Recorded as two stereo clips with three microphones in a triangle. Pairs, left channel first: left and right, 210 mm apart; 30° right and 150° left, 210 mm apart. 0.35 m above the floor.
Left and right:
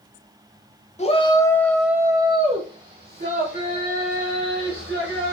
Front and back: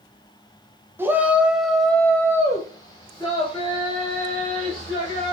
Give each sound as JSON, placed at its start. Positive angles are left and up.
{"t": 1.0, "sound": "a shout", "azimuth_deg": 80, "distance_m": 0.9}